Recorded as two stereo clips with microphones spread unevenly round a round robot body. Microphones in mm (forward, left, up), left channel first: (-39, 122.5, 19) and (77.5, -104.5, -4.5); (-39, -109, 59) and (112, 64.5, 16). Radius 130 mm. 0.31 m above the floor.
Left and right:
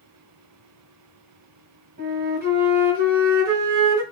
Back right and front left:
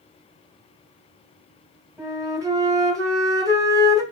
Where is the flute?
20° right, 1.6 m.